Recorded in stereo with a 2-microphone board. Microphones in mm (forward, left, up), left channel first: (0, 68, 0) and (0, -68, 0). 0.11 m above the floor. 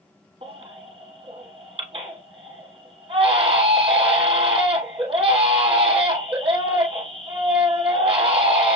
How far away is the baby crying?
About 1.5 m.